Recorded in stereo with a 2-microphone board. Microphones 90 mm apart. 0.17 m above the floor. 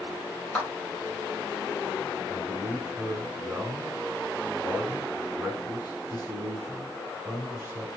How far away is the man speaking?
About 1.3 m.